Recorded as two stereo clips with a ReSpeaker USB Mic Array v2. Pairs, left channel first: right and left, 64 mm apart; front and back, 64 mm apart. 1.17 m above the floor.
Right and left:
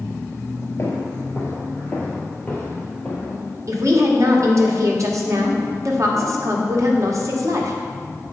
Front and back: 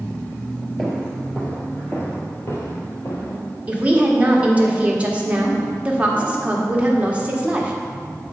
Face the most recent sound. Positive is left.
turn(degrees=115)